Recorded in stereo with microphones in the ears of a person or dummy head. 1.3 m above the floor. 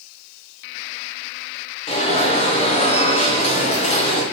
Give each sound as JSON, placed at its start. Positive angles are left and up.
{"t": 1.9, "sound": "an alarm", "side_deg": 30, "distance_m": 0.9}